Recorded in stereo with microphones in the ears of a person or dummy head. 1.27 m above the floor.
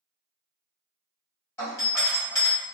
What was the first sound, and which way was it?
A doorbell, 10° left (ahead or behind).